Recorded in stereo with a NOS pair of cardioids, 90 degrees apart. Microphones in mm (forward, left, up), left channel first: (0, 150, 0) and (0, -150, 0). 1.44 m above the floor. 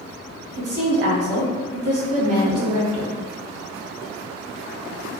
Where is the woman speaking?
55° right, 1.4 m.